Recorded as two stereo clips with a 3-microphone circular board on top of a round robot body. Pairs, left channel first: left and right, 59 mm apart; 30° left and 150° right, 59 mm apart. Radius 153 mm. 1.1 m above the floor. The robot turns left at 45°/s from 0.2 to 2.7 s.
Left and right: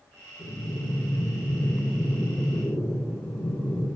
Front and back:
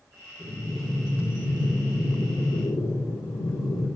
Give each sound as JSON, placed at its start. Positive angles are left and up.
{"t": 0.4, "sound": "breathing", "azimuth_deg": 130, "distance_m": 4.0}